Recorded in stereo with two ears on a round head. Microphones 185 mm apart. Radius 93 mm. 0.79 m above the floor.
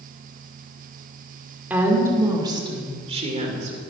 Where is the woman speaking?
10° right (ahead or behind), 1.9 m; by 3.8 s 40° right (ahead or behind), 2.5 m.